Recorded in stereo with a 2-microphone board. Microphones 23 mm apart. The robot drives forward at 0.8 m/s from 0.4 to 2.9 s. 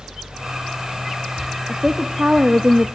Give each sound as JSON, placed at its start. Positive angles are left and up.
{"t": 1.7, "sound": "a woman speaking", "side_deg": -35, "distance_m": 1.0}